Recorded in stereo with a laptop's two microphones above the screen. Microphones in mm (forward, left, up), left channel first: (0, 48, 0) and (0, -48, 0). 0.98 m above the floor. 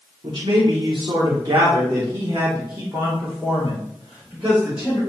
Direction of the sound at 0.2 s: 55° right (ahead or behind).